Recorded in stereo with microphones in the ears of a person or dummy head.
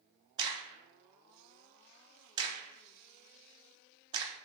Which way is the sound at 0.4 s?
20° right (ahead or behind).